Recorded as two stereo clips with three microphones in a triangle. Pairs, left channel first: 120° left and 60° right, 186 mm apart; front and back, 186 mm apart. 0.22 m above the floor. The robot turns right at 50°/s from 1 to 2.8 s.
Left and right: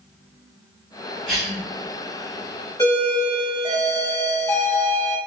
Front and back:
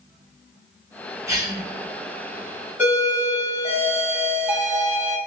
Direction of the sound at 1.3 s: 150° right.